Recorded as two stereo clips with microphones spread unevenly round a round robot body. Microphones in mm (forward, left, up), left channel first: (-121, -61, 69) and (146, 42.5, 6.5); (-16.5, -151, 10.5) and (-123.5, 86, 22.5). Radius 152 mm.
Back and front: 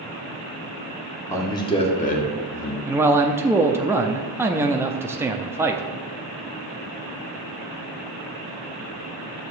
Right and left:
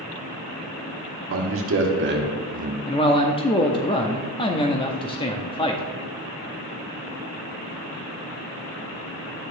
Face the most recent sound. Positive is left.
turn(degrees=-25)